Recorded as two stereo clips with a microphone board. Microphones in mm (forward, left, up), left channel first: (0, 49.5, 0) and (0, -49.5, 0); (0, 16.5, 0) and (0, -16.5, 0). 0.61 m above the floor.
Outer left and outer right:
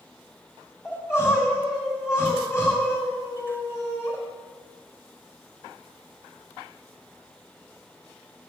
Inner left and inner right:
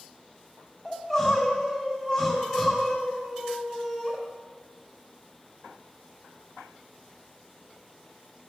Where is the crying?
30° left (ahead or behind), 3 m.